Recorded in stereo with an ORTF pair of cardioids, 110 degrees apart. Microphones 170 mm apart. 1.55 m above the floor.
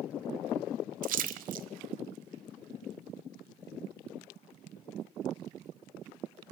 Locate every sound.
1.0 s a splash: 60° right, 0.7 m